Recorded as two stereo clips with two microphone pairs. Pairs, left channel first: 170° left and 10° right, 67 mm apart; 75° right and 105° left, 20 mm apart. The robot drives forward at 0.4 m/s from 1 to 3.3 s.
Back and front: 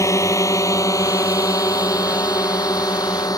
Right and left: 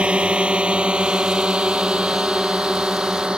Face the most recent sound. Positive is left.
turn(degrees=150)